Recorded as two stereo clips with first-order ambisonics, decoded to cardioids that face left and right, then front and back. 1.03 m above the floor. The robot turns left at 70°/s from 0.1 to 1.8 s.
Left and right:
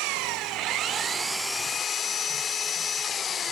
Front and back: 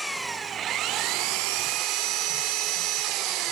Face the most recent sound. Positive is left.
turn(degrees=155)